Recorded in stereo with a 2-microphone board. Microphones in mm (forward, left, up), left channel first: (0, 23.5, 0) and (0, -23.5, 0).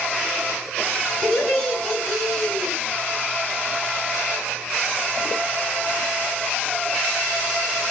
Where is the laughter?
15° left (ahead or behind), 3.5 m.